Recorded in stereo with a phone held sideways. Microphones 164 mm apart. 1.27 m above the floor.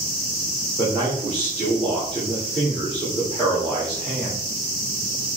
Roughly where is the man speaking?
Centre.